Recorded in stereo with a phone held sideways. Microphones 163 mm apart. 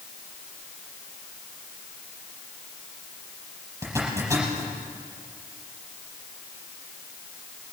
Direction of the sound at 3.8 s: 20° right (ahead or behind).